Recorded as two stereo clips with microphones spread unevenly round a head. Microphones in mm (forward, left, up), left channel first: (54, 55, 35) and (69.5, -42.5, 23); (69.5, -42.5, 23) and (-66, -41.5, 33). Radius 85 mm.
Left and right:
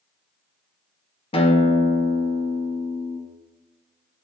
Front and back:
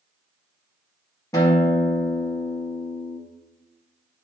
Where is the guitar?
70° left, 1.9 m.